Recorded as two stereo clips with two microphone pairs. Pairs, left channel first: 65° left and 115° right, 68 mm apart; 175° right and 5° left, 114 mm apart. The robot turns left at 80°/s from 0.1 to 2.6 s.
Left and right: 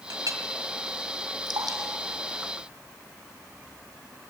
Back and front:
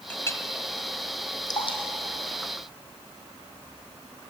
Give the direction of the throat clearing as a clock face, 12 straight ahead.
No throat clearing in this recording.